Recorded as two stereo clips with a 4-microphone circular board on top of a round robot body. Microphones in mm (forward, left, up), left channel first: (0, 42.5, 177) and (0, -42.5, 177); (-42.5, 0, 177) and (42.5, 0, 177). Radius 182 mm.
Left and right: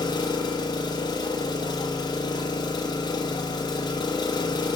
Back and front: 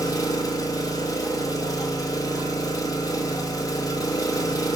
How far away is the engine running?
About 1.3 m.